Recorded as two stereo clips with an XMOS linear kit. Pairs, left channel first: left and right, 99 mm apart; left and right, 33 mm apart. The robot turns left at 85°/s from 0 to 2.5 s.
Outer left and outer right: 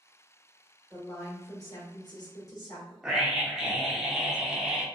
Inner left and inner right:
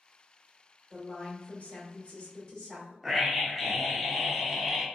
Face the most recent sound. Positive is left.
turn(degrees=-5)  # may be behind; listen again after turning